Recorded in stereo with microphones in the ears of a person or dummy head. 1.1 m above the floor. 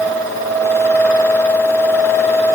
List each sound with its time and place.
Only background noise.